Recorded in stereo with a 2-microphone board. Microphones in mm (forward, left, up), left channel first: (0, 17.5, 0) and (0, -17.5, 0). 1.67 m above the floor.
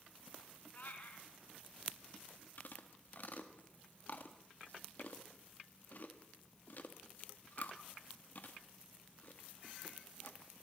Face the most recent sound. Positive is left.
turn(degrees=50)  # may be behind; listen again after turning